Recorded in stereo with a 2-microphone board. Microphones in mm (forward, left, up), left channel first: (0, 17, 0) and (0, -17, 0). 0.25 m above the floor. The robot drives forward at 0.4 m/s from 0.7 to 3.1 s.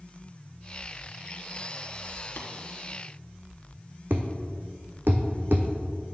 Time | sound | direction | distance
2.4 | tapping | 75° left (ahead or behind) | 1.5 m
4.1 | a thud | 75° right (ahead or behind) | 1.0 m